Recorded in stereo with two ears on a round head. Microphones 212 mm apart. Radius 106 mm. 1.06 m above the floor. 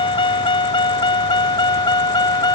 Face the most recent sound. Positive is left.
turn(degrees=20)  # may be behind; listen again after turning